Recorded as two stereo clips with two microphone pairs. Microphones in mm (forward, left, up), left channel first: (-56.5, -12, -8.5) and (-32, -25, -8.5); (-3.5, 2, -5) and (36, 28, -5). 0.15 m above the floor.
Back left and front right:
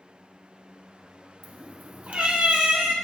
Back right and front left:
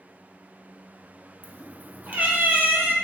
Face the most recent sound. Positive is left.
turn(degrees=-15)